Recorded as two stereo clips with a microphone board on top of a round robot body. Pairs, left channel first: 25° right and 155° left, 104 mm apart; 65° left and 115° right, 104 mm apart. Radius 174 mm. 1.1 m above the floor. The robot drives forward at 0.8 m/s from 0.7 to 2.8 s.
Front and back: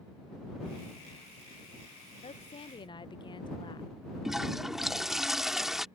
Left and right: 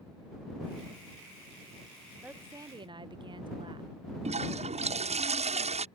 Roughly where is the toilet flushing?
Behind right.